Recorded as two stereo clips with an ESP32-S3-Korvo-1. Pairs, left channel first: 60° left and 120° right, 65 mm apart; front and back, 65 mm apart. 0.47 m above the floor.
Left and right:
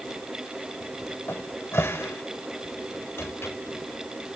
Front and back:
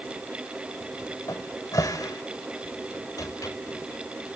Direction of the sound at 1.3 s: 10° left.